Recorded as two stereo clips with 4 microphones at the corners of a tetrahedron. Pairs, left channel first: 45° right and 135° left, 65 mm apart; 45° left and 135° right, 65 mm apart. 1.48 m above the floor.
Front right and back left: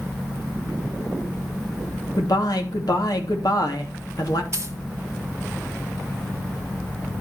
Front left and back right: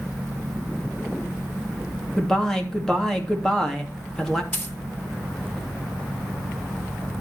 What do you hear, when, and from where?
2.2 s a man speaking: 35° right, 3 m
4.5 s a dropped coin: 100° left, 3 m